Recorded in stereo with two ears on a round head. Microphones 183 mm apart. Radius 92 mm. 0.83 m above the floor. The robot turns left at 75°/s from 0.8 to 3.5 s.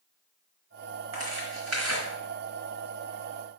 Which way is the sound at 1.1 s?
35° right (ahead or behind).